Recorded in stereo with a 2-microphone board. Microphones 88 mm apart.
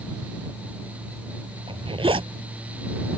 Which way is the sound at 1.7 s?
80° right.